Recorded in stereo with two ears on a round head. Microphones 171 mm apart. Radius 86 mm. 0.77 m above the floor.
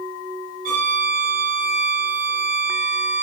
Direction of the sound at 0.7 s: 50° right (ahead or behind).